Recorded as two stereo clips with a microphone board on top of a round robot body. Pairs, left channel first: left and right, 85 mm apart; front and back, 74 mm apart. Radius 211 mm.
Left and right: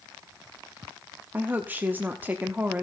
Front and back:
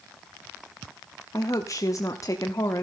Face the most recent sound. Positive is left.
turn(degrees=-25)